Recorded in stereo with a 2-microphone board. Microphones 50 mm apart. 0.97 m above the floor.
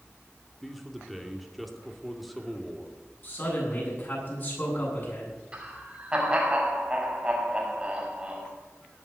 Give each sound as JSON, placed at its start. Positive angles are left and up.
{"t": 0.6, "sound": "a man speaking", "side_deg": 0, "distance_m": 2.5}
{"t": 3.2, "sound": "a man speaking", "side_deg": 40, "distance_m": 8.5}
{"t": 5.5, "sound": "laughter", "side_deg": -20, "distance_m": 6.0}